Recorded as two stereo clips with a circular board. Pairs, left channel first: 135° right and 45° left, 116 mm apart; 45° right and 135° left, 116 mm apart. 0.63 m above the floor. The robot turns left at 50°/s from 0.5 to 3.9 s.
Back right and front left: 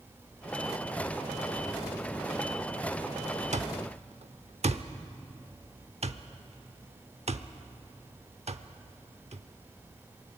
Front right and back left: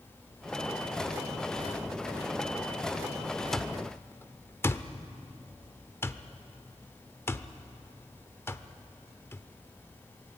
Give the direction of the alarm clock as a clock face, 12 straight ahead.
11 o'clock.